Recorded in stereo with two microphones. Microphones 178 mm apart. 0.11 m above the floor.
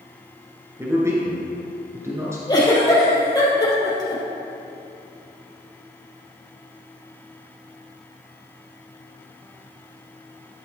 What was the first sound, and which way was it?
A man speaking, 15° right (ahead or behind).